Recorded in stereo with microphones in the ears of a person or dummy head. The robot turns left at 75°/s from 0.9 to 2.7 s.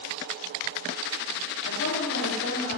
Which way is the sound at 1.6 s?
120° left.